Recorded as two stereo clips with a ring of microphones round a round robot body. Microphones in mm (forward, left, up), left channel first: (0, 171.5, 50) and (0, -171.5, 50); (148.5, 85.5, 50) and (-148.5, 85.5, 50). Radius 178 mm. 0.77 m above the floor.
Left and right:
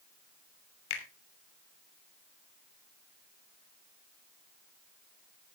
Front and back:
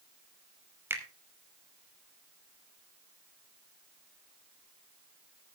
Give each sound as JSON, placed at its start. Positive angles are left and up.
{"t": 0.9, "sound": "a finger snap", "azimuth_deg": 100, "distance_m": 3.0}